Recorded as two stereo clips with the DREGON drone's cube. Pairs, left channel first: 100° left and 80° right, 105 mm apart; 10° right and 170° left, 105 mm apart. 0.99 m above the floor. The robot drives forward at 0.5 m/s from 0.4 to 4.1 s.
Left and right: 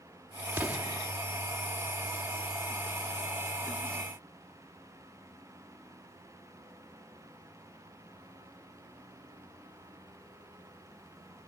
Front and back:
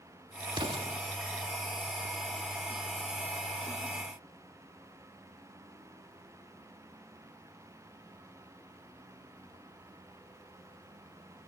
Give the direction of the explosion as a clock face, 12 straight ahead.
5 o'clock.